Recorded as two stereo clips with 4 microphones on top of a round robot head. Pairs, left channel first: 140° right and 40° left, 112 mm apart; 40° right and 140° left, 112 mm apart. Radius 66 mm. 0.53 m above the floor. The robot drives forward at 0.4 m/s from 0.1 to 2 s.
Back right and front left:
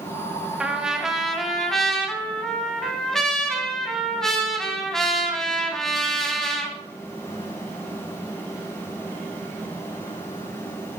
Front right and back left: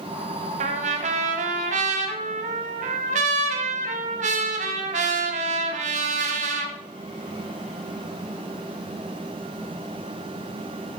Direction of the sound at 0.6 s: 120° left.